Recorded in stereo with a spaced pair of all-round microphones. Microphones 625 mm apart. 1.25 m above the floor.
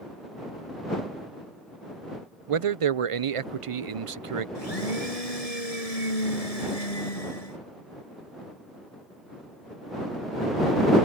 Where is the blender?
70° left (ahead or behind).